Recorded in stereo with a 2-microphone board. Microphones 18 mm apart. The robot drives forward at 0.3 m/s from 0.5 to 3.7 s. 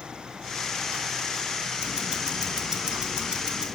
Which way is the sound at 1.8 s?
45° right (ahead or behind).